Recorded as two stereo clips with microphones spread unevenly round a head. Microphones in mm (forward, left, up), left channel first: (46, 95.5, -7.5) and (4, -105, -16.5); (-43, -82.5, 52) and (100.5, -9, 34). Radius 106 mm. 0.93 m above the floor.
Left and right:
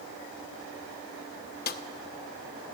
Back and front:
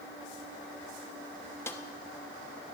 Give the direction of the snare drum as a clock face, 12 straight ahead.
8 o'clock.